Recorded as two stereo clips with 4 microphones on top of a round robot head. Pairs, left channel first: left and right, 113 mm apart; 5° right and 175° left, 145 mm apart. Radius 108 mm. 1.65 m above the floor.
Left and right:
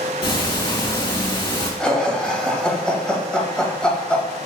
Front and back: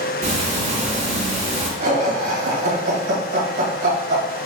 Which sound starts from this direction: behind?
Laughter, at 1.8 s.